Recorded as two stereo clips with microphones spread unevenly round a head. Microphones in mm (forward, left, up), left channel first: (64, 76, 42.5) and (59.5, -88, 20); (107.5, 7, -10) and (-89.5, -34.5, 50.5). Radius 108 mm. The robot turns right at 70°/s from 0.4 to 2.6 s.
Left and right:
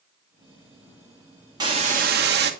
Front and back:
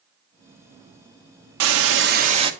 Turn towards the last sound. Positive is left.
turn(degrees=-90)